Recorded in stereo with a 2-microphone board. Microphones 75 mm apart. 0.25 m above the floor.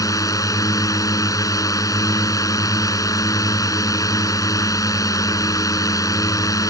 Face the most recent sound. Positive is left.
turn(degrees=50)  # may be behind; listen again after turning